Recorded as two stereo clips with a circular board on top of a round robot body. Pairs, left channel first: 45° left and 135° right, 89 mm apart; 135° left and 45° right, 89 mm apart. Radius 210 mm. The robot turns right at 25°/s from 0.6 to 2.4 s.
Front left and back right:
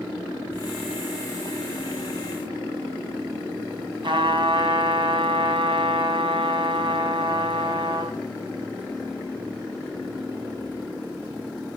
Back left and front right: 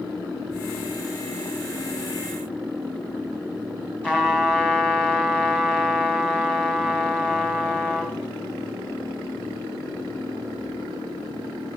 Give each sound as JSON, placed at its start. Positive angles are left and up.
{"t": 4.0, "sound": "a trumpet", "azimuth_deg": -145, "distance_m": 2.5}